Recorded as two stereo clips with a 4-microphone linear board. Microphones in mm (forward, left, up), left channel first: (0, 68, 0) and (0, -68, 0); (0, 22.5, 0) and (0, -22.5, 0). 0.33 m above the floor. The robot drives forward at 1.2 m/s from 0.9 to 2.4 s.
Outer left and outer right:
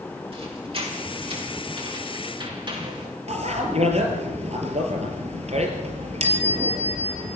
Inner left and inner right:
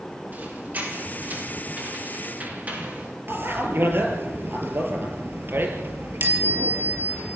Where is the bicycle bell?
50° right (ahead or behind), 4.5 m.